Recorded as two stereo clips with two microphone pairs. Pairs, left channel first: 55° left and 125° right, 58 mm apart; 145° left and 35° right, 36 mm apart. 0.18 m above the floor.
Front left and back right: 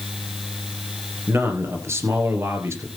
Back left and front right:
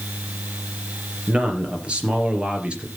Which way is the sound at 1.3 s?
90° right.